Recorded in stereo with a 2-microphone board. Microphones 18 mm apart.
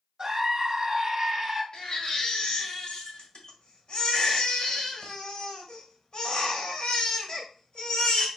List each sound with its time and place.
0.2 s a scream: 30° right (ahead or behind), 1.3 m
1.7 s a baby crying: 50° left (ahead or behind), 1.4 m